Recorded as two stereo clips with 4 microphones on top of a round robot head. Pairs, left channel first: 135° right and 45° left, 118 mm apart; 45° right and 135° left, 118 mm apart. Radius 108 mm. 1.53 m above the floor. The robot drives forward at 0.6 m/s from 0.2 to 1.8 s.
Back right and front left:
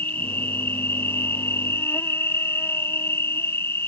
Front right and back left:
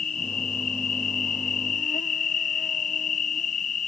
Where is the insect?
60° right; by 3.9 s 65° right.